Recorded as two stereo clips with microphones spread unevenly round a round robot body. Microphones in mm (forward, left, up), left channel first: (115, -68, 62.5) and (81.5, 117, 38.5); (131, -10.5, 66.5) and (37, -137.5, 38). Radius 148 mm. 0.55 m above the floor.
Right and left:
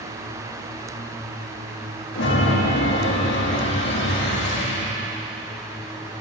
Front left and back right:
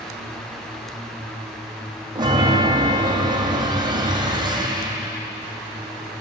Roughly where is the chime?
Ahead right.